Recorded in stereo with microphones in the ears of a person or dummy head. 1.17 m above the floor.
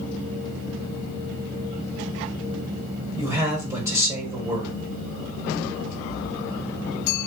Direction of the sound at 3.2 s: 15° right (ahead or behind).